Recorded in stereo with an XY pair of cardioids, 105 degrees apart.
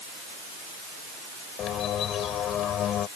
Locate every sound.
1.6 s a bird: 65° left